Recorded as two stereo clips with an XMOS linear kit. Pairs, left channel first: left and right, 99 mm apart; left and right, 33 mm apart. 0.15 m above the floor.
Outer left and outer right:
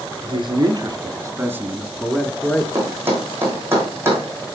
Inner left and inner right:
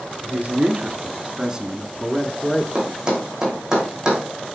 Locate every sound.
0.2 s a man speaking: 50° right (ahead or behind), 2 m; by 2.6 s 15° left (ahead or behind), 1.9 m
2.8 s a thud: 20° right (ahead or behind), 3.5 m